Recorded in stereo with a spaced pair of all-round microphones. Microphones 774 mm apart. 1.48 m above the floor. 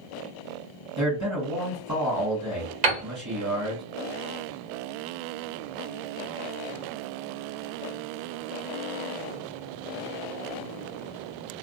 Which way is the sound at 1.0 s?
20° right (ahead or behind).